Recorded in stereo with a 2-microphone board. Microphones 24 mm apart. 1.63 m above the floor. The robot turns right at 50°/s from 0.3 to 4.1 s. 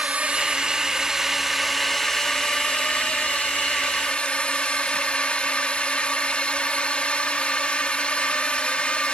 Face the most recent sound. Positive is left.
turn(degrees=120)